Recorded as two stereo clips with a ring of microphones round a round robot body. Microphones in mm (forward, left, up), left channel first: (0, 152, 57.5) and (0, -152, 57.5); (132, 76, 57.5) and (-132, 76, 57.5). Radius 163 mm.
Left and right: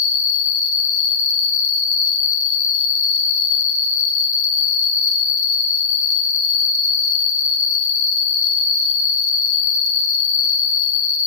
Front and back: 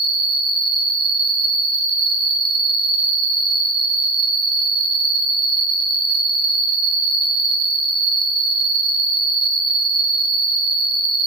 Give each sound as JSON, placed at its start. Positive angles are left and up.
{"t": 0.0, "sound": "an insect", "azimuth_deg": 20, "distance_m": 1.6}